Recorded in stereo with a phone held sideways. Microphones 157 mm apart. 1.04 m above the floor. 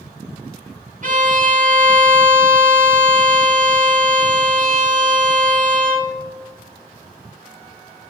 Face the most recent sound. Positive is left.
turn(degrees=-55)  # may be behind; listen again after turning